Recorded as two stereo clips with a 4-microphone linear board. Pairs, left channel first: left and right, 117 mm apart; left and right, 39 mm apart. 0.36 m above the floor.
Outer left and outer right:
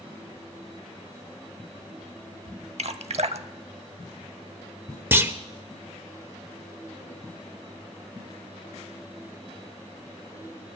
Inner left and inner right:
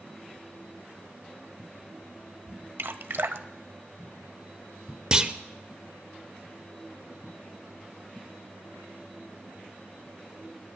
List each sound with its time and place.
2.8 s dripping: 65° right (ahead or behind), 0.6 m
5.1 s a clunk: 20° right (ahead or behind), 0.6 m